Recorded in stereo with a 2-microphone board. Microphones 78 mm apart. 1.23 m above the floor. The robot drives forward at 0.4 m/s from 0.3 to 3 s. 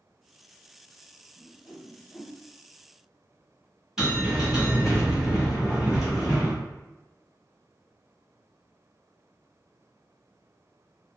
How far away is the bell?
About 1.3 m.